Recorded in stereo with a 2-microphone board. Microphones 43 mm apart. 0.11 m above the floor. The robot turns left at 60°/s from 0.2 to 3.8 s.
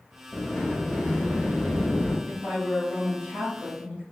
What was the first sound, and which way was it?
A sliding door, 160° left.